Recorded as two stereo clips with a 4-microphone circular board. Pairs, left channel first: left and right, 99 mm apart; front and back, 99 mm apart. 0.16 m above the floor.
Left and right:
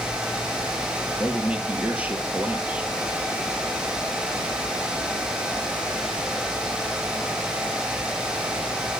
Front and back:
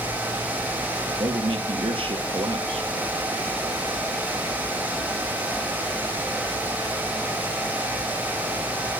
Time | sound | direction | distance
1.2 | a man speaking | 165° right | 3 m